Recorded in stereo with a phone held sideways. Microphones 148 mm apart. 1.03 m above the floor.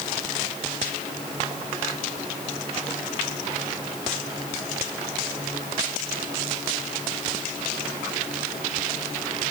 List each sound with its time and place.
Only background noise.